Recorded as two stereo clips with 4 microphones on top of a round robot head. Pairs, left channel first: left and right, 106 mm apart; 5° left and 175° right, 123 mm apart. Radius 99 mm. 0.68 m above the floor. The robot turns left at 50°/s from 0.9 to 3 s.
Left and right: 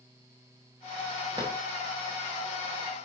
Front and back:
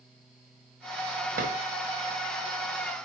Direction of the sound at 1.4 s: 155° right.